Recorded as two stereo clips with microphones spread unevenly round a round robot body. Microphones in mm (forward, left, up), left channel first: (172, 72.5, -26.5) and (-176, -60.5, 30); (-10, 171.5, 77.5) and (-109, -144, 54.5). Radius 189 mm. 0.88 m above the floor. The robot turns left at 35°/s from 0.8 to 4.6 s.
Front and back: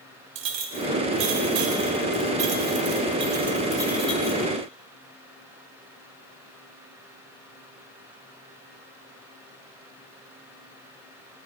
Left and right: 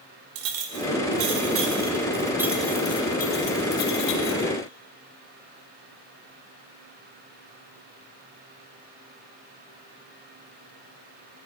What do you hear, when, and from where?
0.3 s a clink: 135° right, 1.4 m; by 4.5 s 95° left, 1.4 m